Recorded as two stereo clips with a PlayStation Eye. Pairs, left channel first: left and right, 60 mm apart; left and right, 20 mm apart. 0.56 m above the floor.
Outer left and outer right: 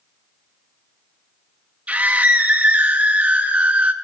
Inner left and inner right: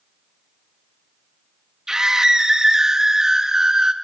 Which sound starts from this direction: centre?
A scream, at 1.9 s.